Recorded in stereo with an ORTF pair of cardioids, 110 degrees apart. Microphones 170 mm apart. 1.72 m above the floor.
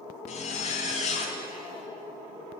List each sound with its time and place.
0.3 s a zipper: 45° left, 0.7 m